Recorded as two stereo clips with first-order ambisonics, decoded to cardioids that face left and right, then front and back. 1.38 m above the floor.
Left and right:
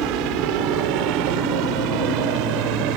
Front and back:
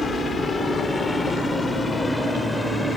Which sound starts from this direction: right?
A helicopter, at 0.0 s.